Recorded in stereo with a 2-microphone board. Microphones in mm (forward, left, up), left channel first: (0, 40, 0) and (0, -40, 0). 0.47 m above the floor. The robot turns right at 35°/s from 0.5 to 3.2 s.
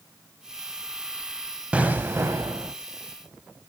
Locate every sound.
1.7 s an explosion: 165° right, 0.5 m; by 2.7 s 130° right, 0.5 m